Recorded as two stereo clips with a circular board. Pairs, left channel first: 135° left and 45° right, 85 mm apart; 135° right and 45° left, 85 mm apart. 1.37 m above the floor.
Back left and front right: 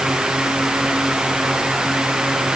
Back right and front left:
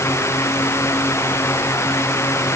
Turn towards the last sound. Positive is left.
No sound to turn to.